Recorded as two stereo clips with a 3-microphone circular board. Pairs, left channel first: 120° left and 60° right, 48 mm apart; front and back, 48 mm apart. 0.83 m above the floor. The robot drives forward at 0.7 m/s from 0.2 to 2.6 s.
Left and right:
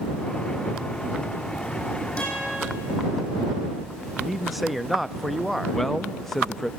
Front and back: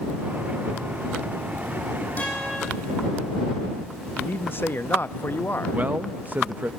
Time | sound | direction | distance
2.2 | a guitar | 55° left | 9.5 m
4.2 | a man speaking | 25° left | 0.6 m
5.7 | a man speaking | 160° right | 0.6 m